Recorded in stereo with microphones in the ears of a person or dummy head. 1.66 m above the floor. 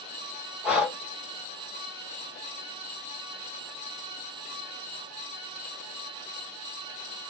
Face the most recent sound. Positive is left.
turn(degrees=-10)  # may be behind; listen again after turning